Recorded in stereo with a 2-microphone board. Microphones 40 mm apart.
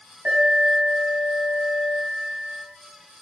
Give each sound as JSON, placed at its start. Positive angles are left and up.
{"t": 0.2, "sound": "an alarm", "side_deg": -65, "distance_m": 5.5}